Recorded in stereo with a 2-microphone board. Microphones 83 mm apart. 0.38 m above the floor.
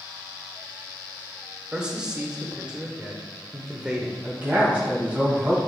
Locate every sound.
1.7 s a man speaking: 10° right (ahead or behind), 0.9 m
4.2 s a man speaking: 20° right (ahead or behind), 2.5 m